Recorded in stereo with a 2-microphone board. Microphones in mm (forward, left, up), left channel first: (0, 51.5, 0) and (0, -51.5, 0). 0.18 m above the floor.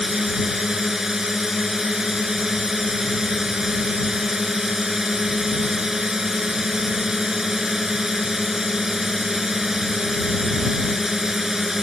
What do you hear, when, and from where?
0.0 s a drone: 5° right (ahead or behind)